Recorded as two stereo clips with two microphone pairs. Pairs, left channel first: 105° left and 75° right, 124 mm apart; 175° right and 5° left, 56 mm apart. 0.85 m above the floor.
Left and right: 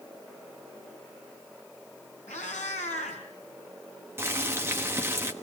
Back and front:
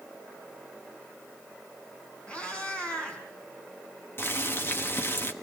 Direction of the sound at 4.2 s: 140° right.